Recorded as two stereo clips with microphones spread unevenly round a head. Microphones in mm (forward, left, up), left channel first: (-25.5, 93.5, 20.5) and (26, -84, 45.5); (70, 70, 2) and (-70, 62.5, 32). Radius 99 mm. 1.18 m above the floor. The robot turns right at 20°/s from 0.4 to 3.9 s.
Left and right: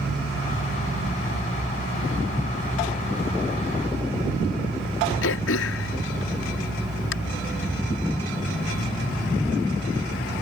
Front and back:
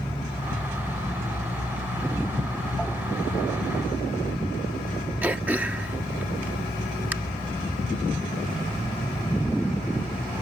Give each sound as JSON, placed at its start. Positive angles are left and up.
{"t": 5.2, "sound": "throat clearing", "azimuth_deg": 105}